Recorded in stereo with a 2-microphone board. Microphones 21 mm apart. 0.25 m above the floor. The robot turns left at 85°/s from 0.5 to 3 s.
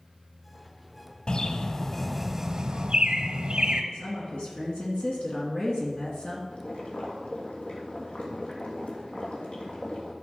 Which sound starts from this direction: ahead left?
A bird, at 1.3 s.